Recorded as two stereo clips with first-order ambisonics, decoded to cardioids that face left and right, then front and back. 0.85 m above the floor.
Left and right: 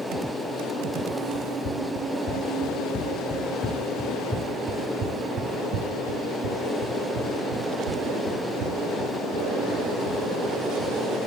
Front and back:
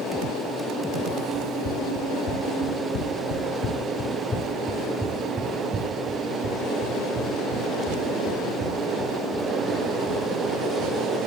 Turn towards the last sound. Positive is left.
turn(degrees=-120)